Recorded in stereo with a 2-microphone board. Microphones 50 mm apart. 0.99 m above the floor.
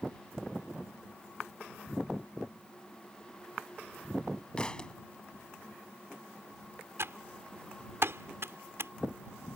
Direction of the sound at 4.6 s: 20° left (ahead or behind).